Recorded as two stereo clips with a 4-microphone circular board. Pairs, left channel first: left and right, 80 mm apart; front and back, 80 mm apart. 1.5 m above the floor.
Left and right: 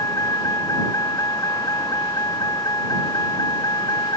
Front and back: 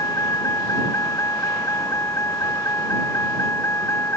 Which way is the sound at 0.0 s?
45° left.